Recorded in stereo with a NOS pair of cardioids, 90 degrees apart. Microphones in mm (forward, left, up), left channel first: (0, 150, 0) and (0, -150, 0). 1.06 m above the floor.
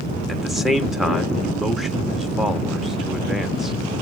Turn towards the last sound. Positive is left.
turn(degrees=0)